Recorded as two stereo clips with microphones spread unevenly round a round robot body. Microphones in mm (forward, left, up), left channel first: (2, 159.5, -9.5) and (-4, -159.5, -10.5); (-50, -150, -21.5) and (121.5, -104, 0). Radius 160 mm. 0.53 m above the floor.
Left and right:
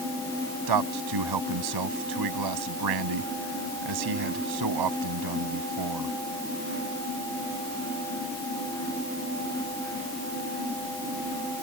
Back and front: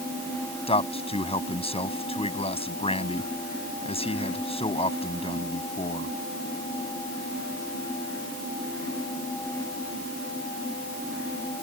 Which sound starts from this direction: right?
A man speaking, at 0.7 s.